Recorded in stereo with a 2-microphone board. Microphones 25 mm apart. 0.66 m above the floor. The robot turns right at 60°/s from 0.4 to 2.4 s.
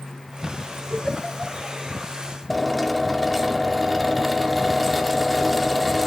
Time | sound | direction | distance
0.9 | a giggle | 30° right (ahead or behind) | 7 m
2.5 | a drill | centre (ahead or behind) | 1.8 m